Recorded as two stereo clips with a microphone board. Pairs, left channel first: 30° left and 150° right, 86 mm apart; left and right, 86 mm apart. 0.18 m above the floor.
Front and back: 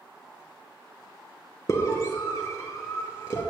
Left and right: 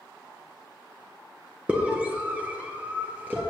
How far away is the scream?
About 2.5 m.